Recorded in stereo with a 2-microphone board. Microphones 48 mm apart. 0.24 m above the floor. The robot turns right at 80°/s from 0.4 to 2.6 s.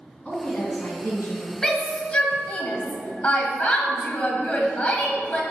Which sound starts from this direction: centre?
A shout, at 1.6 s.